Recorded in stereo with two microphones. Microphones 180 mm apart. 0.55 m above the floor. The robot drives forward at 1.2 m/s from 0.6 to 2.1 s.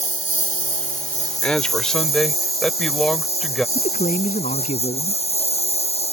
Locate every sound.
0.0 s a lawn mower: 45° left (ahead or behind); by 6.2 s 35° left (ahead or behind)
1.4 s a man speaking: 5° left (ahead or behind)
3.8 s a man speaking: 45° left (ahead or behind)